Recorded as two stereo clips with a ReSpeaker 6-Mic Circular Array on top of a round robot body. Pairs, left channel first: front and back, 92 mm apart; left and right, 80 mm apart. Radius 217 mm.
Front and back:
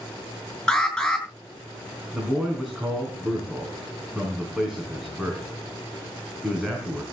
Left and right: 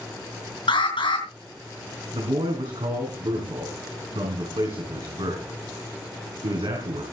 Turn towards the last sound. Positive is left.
turn(degrees=-100)